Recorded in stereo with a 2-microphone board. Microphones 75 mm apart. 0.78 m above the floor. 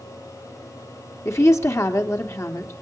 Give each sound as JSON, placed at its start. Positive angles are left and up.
{"t": 1.2, "sound": "a woman speaking", "side_deg": 45, "distance_m": 2.0}